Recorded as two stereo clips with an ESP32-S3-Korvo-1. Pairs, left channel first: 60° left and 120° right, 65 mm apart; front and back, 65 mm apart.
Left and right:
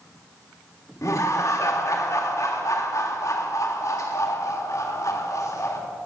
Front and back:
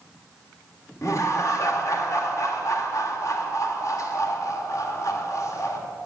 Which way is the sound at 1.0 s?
30° left.